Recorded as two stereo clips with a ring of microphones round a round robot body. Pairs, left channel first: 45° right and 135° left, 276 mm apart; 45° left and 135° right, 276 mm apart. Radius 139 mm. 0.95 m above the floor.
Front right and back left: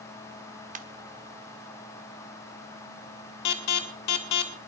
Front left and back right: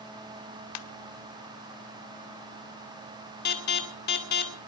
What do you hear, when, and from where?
0.8 s a ringtone: 70° left, 1.0 m
3.5 s an alarm: 10° right, 2.5 m